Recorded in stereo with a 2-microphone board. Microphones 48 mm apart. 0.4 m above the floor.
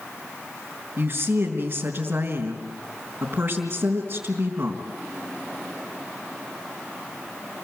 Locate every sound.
1.0 s a woman speaking: 35° right (ahead or behind), 3.5 m